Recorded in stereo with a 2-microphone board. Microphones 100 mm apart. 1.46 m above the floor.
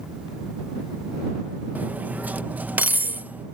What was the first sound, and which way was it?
Cutlery clinking, 15° right (ahead or behind).